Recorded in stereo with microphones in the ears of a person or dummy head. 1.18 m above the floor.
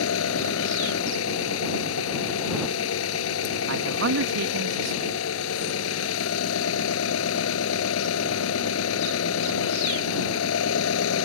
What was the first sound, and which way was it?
An engine running, 90° left.